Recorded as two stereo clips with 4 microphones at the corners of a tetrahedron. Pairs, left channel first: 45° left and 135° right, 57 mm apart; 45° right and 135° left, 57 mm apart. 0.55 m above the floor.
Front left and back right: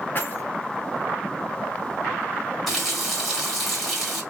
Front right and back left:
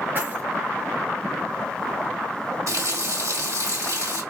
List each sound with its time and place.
0.1 s keys jangling: 90° left, 1.2 m
2.7 s a running tap: 135° left, 1.7 m